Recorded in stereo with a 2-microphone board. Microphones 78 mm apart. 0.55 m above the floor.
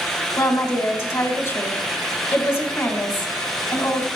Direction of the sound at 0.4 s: 45° left (ahead or behind).